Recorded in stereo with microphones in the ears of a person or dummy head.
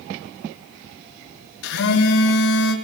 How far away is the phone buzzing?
About 3 m.